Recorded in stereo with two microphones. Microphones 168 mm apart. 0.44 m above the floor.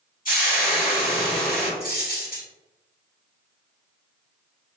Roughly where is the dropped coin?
Left.